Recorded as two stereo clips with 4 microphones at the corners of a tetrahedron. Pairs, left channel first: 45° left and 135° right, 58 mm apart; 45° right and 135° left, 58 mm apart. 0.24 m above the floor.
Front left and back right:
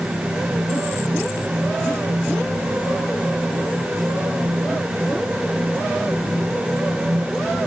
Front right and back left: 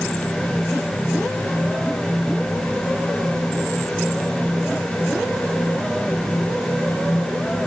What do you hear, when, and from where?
Only background noise.